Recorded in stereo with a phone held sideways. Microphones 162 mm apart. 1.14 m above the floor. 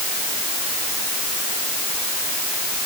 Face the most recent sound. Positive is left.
No sound to turn to.